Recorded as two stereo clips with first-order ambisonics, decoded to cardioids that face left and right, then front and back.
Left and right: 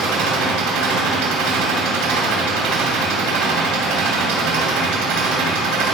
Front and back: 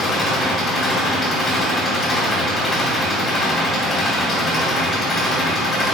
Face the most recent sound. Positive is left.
turn(degrees=-70)